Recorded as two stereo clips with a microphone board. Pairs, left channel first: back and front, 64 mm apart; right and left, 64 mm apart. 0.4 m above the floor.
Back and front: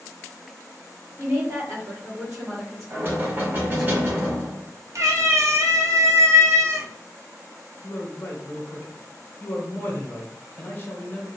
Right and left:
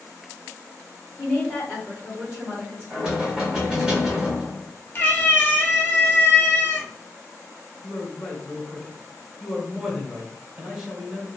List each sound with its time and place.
1.2 s a woman speaking: 35° right, 1.5 m; by 3.9 s 95° left, 2.5 m
2.9 s knocking: 20° left, 1.3 m
5.0 s a cat meowing: 30° right, 0.9 m
7.8 s a man speaking: 155° left, 1.0 m